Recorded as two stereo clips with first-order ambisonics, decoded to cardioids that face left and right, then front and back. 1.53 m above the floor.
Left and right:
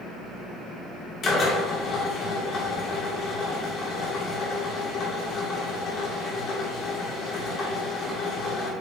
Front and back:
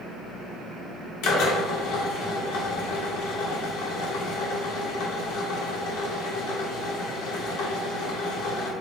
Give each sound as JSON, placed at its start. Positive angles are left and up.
{"t": 1.2, "sound": "a drill", "azimuth_deg": 30, "distance_m": 2.5}